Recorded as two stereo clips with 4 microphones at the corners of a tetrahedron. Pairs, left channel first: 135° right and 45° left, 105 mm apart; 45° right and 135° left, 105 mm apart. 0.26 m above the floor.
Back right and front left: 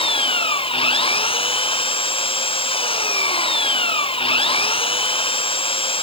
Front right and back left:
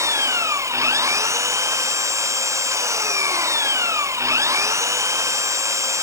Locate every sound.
0.0 s an engine running: 165° right